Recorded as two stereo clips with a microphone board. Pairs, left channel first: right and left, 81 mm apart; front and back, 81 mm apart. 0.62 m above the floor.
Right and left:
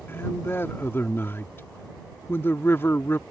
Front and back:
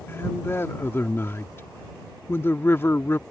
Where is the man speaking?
45° right.